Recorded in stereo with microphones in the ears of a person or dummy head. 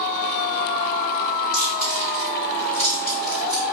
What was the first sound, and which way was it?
Chewing, 10° left (ahead or behind).